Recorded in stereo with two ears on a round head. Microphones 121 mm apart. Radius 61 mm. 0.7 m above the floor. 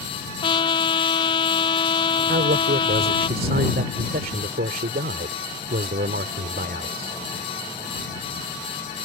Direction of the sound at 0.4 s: 35° left (ahead or behind).